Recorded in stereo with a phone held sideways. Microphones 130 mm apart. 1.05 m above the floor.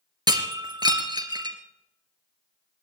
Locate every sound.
0.3 s breaking glass: 35° right (ahead or behind), 2.5 m